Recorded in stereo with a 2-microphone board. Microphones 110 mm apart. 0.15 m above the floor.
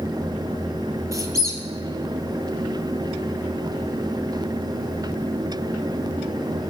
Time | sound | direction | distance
1.1 | a squeak | 30° right (ahead or behind) | 0.8 m